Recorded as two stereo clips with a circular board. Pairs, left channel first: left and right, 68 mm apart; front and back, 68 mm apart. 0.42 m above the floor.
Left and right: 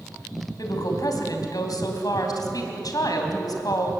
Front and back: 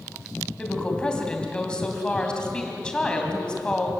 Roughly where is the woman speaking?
Left.